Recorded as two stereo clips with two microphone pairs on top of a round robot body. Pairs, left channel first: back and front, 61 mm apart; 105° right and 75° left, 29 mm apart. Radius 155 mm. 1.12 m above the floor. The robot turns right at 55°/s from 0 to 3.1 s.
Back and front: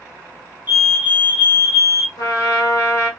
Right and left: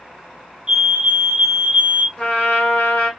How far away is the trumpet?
About 1.2 m.